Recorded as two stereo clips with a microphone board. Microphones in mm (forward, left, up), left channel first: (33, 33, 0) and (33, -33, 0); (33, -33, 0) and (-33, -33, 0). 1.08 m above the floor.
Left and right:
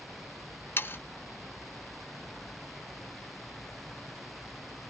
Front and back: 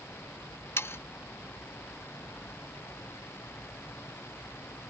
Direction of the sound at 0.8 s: 40° left.